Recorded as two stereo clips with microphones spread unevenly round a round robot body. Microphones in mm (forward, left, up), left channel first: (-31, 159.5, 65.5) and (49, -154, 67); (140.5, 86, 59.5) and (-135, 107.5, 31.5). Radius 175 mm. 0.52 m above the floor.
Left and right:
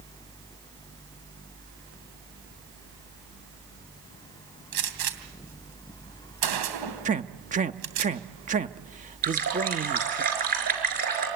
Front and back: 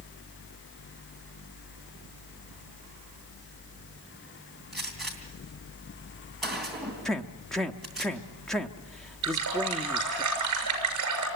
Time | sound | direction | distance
4.7 | a gunshot | 95° right | 3 m
7.0 | a man speaking | 105° right | 1.0 m
9.2 | a running tap | 140° right | 5.5 m